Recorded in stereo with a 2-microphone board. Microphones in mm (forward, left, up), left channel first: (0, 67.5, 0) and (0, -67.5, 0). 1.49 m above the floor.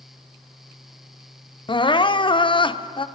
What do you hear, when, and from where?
1.7 s crying: 40° left (ahead or behind), 0.6 m